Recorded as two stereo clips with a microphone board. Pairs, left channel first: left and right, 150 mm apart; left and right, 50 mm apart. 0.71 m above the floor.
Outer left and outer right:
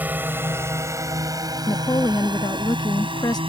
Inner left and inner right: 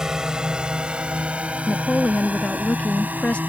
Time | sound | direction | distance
0.0 | a drone | 10° right (ahead or behind) | ?
1.7 | a woman speaking | 25° left (ahead or behind) | ?